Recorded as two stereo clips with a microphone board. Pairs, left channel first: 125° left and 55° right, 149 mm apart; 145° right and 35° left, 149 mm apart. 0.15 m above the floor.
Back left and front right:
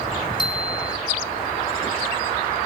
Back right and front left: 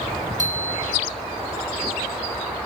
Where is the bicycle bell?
65° left, 5 m.